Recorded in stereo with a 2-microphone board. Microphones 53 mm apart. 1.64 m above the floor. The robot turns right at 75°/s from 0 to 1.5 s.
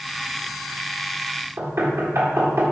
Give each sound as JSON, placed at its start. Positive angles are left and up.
{"t": 1.6, "sound": "knocking", "side_deg": -60, "distance_m": 1.8}